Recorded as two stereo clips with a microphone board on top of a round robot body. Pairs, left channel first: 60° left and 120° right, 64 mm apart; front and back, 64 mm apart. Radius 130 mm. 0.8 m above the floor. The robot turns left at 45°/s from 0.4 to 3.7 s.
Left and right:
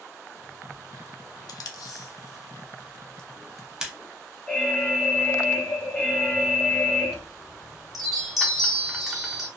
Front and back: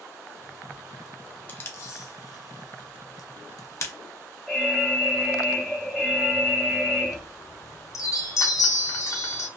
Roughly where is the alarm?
Left.